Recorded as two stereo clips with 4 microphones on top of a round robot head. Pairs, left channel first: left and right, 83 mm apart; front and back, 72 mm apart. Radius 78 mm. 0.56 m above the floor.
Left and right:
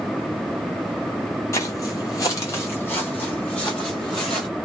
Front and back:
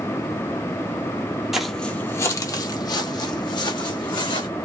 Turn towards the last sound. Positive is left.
turn(degrees=10)